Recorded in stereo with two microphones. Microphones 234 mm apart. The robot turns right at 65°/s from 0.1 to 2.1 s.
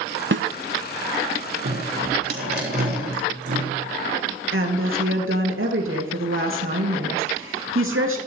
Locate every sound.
0.3 s a snare drum: 55° right (ahead or behind), 0.6 m; by 0.5 s 60° right (ahead or behind), 0.6 m
1.6 s dripping: 75° right (ahead or behind), 8.5 m; by 3.7 s 45° right (ahead or behind), 8.5 m
4.5 s a woman speaking: 60° right (ahead or behind), 2.5 m